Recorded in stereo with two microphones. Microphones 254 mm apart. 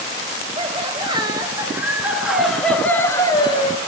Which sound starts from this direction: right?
Laughter, at 0.6 s.